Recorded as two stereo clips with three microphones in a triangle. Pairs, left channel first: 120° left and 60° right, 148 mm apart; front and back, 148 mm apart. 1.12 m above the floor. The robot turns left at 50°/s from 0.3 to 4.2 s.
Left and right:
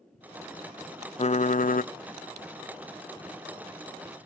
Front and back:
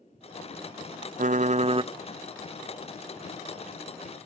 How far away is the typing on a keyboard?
About 0.5 m.